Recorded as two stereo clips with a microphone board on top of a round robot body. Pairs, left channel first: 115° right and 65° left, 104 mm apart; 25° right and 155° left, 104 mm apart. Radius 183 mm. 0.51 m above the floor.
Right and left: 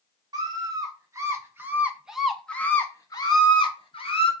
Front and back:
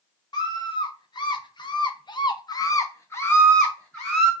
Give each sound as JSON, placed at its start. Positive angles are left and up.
{"t": 0.3, "sound": "a scream", "azimuth_deg": 20, "distance_m": 1.5}